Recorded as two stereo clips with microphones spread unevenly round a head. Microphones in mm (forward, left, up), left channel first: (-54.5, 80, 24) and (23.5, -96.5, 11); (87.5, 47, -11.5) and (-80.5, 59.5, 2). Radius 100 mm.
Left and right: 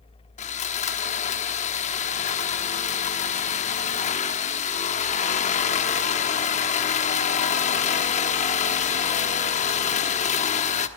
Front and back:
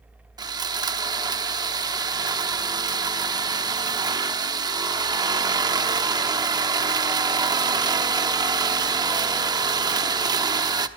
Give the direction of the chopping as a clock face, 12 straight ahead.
I don't hear chopping.